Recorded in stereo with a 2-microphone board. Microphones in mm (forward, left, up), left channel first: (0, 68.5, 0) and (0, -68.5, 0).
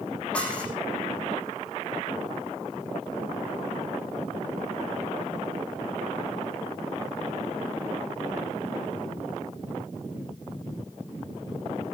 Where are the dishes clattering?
10° left (ahead or behind), 9 m.